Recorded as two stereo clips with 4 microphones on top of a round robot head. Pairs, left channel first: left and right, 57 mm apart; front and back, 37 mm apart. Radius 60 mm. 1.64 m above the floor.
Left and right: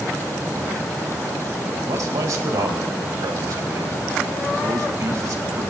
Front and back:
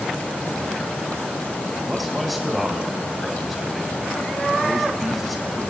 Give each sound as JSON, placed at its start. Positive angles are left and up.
{"t": 1.9, "sound": "a man speaking", "azimuth_deg": -90, "distance_m": 1.8}